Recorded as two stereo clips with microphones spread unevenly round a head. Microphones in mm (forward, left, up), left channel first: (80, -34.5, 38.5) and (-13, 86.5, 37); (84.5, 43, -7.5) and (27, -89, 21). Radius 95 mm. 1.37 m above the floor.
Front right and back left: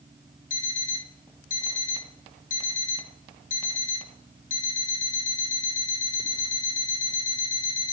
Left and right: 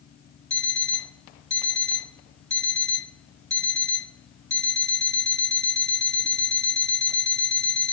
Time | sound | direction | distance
0.5 | an alarm clock | 20° right | 1.9 m